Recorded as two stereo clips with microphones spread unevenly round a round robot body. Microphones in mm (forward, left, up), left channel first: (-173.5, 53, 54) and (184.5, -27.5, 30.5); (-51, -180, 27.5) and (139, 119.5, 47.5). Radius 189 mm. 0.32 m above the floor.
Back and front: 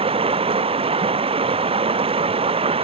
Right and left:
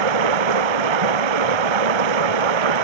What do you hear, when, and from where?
0.0 s running water: 65° left